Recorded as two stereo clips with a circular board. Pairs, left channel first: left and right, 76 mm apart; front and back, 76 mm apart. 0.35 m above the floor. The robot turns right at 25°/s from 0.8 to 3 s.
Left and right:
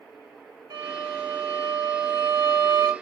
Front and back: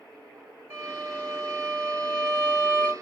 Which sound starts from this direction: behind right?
A violin, at 0.7 s.